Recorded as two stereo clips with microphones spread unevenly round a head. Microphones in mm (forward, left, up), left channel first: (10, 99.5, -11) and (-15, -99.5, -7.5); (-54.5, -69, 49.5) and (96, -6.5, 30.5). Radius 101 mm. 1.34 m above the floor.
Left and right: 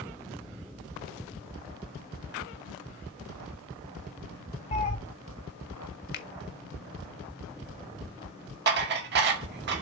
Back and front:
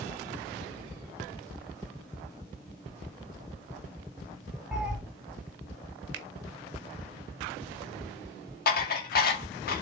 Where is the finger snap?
45° left, 1.1 m.